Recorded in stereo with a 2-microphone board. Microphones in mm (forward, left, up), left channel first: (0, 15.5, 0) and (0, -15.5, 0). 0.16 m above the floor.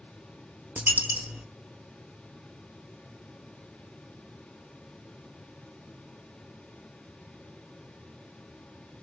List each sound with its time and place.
0.8 s a dropped coin: 80° right, 0.5 m